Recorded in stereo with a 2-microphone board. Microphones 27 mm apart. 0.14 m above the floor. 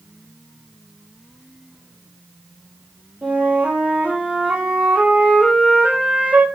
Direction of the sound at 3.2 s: 70° right (ahead or behind).